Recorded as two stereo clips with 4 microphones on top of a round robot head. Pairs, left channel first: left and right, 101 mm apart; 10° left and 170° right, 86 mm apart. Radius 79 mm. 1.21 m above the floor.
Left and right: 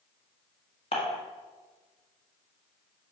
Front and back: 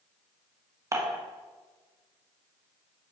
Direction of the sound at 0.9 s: 135° left.